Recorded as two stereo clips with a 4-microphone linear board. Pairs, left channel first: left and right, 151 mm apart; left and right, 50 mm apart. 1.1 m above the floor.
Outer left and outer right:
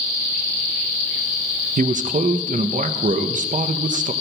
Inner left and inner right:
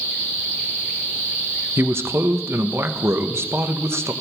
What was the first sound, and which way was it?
A man speaking, 55° right (ahead or behind).